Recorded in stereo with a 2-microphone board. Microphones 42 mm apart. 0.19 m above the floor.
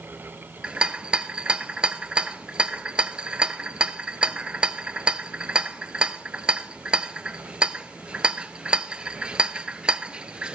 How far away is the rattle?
About 0.6 m.